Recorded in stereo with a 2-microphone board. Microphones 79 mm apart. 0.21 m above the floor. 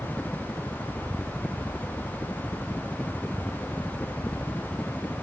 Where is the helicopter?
20° left (ahead or behind).